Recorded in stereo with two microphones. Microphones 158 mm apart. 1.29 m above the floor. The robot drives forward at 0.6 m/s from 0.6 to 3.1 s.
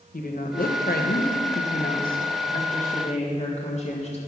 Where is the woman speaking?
65° left (ahead or behind), 1.1 m; by 4.2 s 45° left (ahead or behind), 1.4 m.